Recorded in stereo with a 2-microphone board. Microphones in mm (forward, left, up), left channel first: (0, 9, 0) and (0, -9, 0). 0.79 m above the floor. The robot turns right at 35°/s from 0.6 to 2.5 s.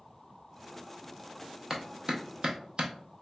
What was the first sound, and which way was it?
A clap, 25° right (ahead or behind).